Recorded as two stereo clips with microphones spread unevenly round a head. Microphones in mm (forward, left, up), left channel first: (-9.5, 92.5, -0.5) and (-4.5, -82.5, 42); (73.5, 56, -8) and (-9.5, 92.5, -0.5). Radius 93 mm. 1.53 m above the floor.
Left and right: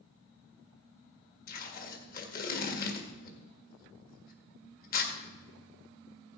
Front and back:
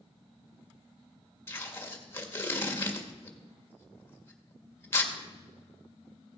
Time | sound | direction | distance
1.5 | tape being pulled | 45° left | 2.0 m